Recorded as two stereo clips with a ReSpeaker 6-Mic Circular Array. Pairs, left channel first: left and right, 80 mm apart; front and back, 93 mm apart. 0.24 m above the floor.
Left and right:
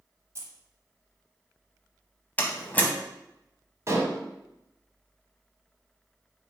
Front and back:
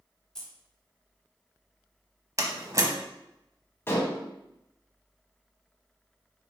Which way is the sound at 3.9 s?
55° right.